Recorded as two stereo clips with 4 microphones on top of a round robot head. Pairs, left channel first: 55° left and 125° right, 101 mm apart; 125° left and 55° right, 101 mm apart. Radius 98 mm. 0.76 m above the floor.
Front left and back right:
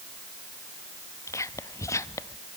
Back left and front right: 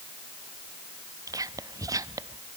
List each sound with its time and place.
1.3 s whispering: straight ahead, 0.8 m